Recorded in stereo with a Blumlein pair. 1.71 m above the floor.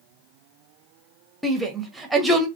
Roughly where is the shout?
Ahead.